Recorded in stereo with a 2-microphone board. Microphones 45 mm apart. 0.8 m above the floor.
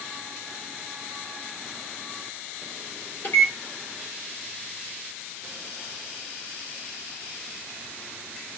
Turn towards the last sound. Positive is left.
turn(degrees=50)  # may be behind; listen again after turning